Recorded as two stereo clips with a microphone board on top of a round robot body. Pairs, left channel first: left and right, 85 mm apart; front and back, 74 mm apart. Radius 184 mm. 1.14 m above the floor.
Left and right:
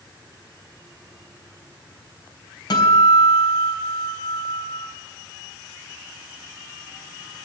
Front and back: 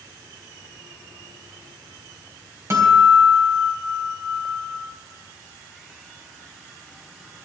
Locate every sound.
2.7 s a guitar: 125° left, 3.5 m